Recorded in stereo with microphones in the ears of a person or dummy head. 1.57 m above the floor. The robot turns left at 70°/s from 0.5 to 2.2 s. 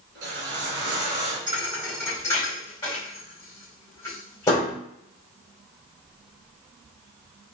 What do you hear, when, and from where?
0.1 s a whoosh: 90° right, 3 m; by 1.4 s 150° right, 3 m
1.5 s a thud: 30° right (ahead or behind), 3.5 m; by 4.8 s 20° left (ahead or behind), 3.5 m